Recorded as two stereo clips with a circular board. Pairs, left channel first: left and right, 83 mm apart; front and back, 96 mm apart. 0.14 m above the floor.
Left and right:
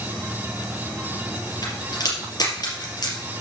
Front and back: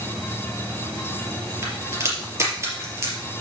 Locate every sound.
1.6 s a crack: 120° left, 4 m